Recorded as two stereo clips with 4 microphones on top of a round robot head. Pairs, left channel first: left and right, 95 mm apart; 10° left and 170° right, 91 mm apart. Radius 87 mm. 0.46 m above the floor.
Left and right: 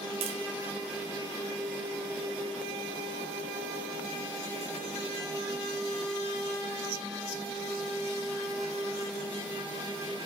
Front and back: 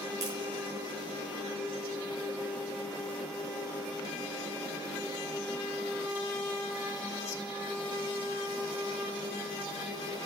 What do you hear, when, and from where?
0.2 s tapping: 115° right, 3.5 m